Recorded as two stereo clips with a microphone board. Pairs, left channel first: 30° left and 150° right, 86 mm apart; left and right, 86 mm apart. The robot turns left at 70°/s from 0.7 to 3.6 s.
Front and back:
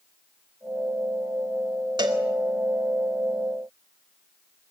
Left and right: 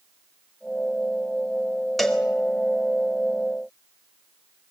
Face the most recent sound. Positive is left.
turn(degrees=65)